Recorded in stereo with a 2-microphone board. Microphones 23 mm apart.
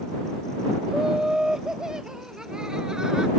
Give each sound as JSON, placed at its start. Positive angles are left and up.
{"t": 0.9, "sound": "laughter", "side_deg": -25}